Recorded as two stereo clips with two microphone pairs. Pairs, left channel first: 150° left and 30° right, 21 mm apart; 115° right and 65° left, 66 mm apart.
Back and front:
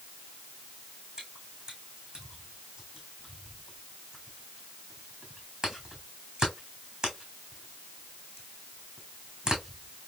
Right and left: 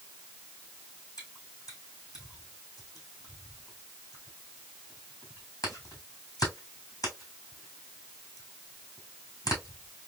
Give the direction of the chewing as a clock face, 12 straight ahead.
3 o'clock.